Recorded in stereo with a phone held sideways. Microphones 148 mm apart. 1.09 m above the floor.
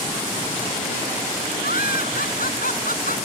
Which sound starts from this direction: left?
Laughter, at 1.6 s.